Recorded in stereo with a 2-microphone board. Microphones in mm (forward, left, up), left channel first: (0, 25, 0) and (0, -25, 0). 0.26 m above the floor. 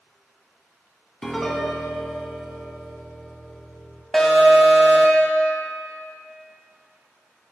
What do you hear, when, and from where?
1.2 s a piano: 10° left (ahead or behind), 0.8 m
4.1 s an alarm: 5° left (ahead or behind), 1.2 m